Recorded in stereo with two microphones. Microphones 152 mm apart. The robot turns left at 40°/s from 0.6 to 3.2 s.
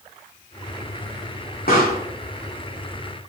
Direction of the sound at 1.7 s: 70° left (ahead or behind).